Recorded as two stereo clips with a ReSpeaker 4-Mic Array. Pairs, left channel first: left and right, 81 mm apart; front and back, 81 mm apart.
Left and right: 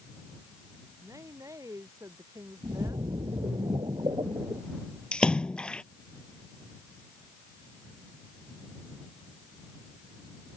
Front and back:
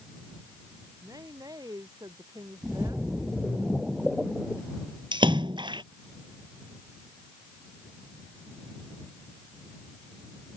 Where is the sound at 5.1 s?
170° left.